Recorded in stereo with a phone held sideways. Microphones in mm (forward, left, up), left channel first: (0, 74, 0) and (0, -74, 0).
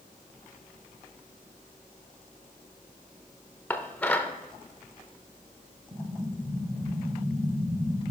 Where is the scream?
No scream in this recording.